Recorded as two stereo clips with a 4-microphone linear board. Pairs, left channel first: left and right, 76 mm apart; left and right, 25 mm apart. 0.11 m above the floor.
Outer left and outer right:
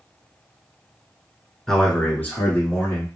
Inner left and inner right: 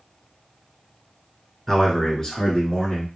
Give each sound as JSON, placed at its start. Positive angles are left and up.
{"t": 1.7, "sound": "a man speaking", "side_deg": 10, "distance_m": 1.1}